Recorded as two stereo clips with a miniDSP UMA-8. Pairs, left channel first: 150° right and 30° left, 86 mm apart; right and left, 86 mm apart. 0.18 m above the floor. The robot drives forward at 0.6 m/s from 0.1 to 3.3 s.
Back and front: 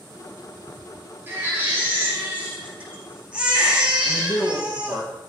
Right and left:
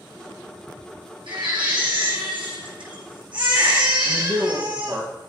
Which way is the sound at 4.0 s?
150° left.